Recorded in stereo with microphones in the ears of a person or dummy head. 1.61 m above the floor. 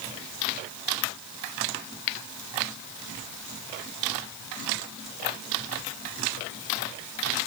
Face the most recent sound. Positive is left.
No sound to turn to.